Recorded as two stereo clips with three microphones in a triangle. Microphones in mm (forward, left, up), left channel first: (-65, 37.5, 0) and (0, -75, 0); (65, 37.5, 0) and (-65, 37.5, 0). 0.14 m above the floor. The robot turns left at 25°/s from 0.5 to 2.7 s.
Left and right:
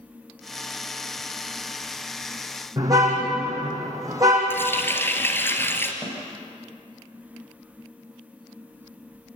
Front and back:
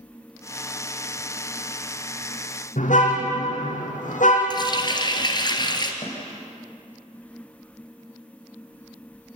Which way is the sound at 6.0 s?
50° left.